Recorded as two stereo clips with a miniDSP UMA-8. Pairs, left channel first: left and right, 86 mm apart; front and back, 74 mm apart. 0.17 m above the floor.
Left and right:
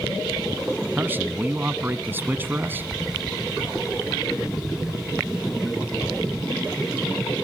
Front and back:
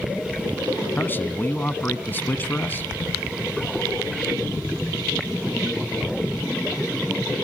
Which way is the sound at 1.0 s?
40° right.